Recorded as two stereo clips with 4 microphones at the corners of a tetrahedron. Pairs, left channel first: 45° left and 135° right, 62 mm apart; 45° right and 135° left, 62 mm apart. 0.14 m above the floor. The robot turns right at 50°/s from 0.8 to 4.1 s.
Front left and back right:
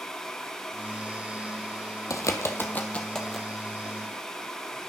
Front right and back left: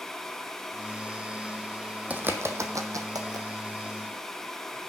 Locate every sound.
2.1 s a bird: 70° left, 0.8 m; by 3.5 s 140° left, 0.8 m